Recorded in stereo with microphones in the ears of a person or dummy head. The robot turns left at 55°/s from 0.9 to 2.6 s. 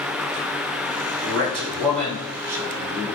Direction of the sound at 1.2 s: 95° right.